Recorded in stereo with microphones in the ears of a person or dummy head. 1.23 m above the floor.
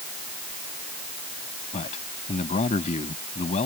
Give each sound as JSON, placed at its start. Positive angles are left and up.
{"t": 1.7, "sound": "a man speaking", "side_deg": 35}